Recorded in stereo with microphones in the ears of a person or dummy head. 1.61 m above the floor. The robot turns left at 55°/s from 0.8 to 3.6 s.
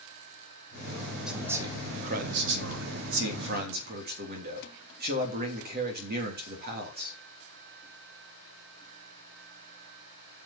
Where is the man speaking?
Straight ahead, 3 m; by 7.2 s 130° right, 3 m.